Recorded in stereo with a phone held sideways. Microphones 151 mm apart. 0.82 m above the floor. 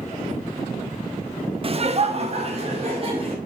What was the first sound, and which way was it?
Laughter, 40° right (ahead or behind).